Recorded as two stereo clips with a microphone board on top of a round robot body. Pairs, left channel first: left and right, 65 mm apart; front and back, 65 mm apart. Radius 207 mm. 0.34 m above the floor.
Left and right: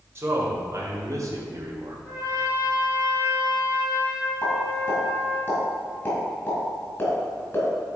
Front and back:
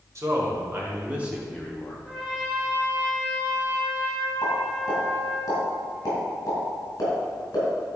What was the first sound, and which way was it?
A man speaking, 140° right.